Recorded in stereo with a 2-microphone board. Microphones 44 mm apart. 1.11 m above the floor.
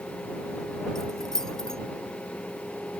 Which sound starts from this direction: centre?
Keys jangling, at 0.9 s.